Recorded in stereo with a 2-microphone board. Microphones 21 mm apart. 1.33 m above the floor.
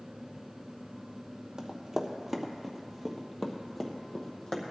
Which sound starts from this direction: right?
Running footsteps, at 1.6 s.